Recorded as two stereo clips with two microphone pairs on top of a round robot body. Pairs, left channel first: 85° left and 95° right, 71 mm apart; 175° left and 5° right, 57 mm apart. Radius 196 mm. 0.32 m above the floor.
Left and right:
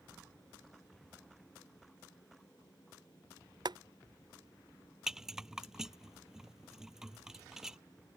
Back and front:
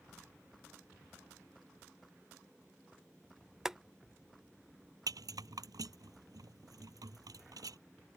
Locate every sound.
3.6 s boiling: 85° right
5.1 s a rattle: 10° right